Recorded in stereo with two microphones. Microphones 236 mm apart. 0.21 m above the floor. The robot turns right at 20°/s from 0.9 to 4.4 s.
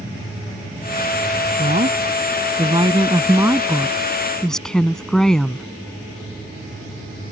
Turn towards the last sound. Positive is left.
turn(degrees=5)